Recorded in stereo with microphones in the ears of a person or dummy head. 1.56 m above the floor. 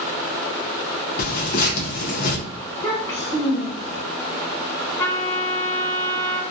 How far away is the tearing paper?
About 0.7 m.